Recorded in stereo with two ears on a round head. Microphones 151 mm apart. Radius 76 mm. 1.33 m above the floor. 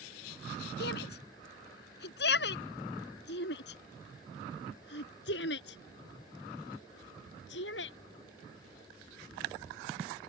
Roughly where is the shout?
Left.